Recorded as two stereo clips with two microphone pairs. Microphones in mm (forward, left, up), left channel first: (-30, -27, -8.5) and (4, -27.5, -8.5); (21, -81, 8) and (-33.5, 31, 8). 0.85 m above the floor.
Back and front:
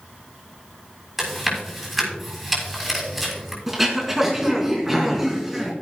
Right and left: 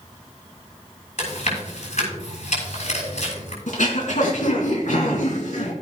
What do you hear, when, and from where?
1.2 s chewing: 85° right, 6.5 m
3.7 s throat clearing: 80° right, 3 m